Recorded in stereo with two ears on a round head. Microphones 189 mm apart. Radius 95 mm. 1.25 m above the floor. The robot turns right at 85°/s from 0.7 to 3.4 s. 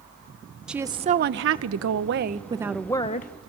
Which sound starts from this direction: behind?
A woman speaking, at 0.7 s.